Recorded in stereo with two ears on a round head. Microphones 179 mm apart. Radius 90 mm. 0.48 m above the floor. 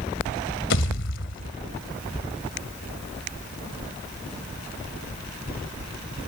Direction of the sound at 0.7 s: 65° left (ahead or behind).